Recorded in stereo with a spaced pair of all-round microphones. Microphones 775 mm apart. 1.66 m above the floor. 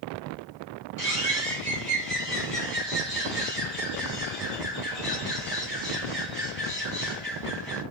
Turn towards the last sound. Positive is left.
turn(degrees=15)  # may be behind; listen again after turning